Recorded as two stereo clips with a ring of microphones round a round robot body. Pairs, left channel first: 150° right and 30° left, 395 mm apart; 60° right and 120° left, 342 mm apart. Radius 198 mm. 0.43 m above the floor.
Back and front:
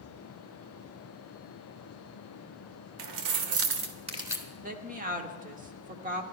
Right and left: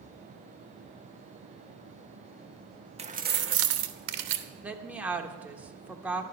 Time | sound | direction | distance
3.0 | keys jangling | 50° left | 1.1 m
4.6 | a woman speaking | 40° left | 0.9 m